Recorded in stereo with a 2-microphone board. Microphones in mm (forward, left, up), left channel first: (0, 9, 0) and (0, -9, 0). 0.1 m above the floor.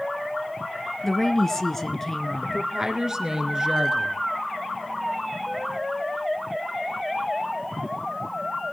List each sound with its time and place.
1.0 s a woman speaking: 20° left (ahead or behind), 1.1 m
2.4 s a woman speaking: 25° right (ahead or behind), 1.5 m